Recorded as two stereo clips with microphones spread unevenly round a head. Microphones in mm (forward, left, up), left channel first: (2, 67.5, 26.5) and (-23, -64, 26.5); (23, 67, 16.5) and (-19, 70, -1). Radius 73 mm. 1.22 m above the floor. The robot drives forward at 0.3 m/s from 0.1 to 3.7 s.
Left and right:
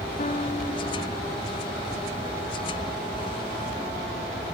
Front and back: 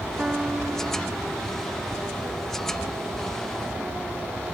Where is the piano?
115° left, 1.8 m; by 1.3 s 125° left, 2.0 m.